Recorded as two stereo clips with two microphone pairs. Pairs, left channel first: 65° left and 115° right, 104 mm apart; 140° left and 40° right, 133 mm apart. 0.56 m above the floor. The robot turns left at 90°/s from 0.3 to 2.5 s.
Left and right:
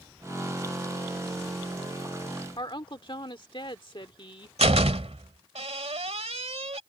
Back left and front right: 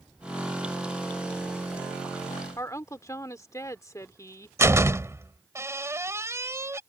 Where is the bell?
No bell in this recording.